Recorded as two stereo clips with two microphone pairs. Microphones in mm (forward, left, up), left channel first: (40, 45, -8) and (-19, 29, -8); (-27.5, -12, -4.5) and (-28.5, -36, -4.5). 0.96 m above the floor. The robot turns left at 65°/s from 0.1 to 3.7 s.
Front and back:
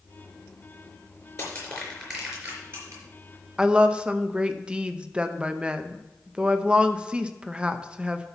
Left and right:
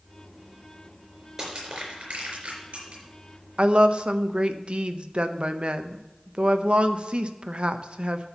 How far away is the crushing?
About 4.5 m.